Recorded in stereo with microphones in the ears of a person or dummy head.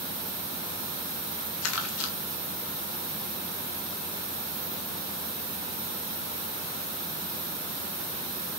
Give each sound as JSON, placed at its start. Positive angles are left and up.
{"t": 1.6, "sound": "crumpling", "side_deg": 85, "distance_m": 2.5}